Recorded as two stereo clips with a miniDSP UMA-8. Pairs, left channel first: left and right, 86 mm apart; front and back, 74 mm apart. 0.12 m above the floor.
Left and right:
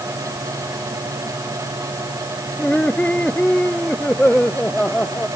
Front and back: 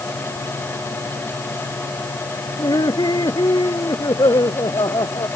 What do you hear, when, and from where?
2.6 s laughter: 15° left